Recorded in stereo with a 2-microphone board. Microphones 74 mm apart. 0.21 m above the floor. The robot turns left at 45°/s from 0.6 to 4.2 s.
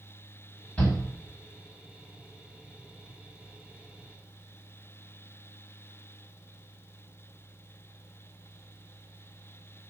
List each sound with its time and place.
0.8 s a shout: 15° left (ahead or behind), 1.5 m; by 1.0 s 20° left (ahead or behind), 1.5 m